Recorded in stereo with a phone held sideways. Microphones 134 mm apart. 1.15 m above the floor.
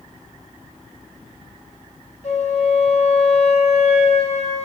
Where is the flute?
55° left (ahead or behind), 1.1 m.